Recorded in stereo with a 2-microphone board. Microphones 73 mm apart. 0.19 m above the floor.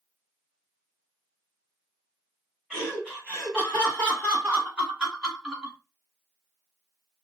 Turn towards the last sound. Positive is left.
turn(degrees=-15)  # may be behind; listen again after turning